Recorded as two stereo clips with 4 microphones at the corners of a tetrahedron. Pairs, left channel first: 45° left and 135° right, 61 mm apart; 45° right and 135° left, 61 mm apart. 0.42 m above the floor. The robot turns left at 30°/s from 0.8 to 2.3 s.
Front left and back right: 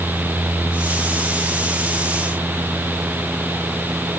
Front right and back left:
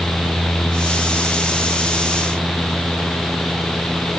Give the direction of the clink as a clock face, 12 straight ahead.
I don't hear a clink.